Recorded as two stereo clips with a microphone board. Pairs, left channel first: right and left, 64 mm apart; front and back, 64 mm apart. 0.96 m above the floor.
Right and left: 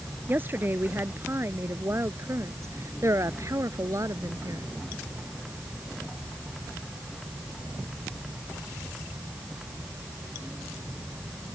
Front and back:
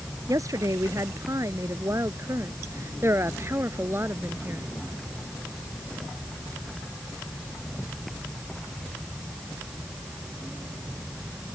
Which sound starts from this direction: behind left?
A woman speaking, at 0.3 s.